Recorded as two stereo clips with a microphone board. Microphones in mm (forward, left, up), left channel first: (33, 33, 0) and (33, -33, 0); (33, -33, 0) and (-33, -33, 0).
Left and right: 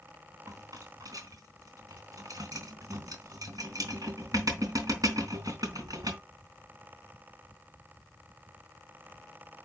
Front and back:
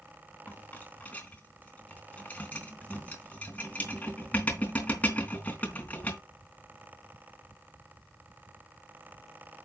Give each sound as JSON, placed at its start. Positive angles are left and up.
{"t": 0.5, "sound": "a rattle", "azimuth_deg": -65, "distance_m": 3.0}